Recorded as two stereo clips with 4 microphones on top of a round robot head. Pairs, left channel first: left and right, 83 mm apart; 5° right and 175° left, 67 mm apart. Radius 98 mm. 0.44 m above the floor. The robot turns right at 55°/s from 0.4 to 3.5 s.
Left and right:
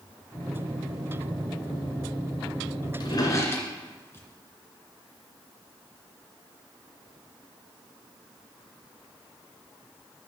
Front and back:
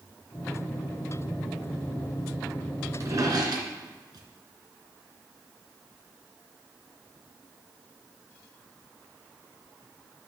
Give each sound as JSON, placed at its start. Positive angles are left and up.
{"t": 3.0, "sound": "a drawer", "azimuth_deg": 125, "distance_m": 2.5}